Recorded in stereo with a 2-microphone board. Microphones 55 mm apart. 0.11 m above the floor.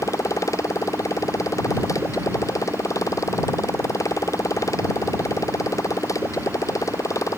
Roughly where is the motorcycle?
Left.